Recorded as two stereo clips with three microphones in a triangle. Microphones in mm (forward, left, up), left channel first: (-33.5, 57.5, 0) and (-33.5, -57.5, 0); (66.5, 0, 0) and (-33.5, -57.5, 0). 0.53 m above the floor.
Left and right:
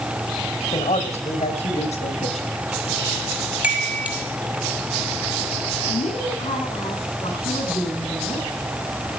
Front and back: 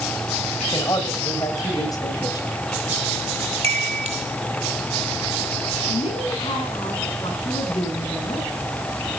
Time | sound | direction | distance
0.7 | a man speaking | 85° left | 2.5 m
3.6 | a chime | 165° right | 1.8 m
5.9 | a woman speaking | 65° left | 7.5 m